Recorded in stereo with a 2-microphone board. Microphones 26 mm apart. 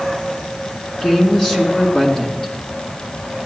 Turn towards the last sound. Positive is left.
turn(degrees=30)  # may be behind; listen again after turning